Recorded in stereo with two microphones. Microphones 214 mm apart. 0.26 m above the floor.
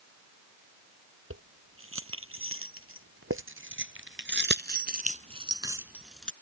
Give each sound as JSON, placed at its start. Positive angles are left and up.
{"t": 1.3, "sound": "keys jangling", "side_deg": -80}